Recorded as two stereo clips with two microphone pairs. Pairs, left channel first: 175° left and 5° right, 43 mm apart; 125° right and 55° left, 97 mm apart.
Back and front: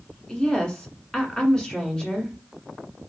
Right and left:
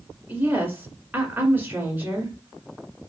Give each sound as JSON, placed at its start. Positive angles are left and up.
{"t": 0.3, "sound": "a woman speaking", "azimuth_deg": 115, "distance_m": 1.5}